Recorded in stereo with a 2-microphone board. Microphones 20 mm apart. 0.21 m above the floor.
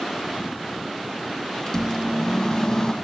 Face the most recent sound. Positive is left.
turn(degrees=30)  # may be behind; listen again after turning